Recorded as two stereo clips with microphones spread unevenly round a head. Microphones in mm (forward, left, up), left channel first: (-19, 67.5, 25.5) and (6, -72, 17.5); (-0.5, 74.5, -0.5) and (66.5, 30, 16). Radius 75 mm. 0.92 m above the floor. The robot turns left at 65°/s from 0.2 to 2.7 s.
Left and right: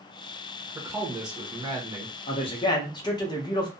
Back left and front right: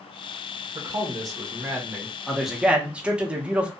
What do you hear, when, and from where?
0.8 s a man speaking: 25° right, 0.9 m; by 2.1 s 115° right, 0.9 m
2.3 s a man speaking: 80° left, 0.8 m; by 3.7 s 50° left, 0.8 m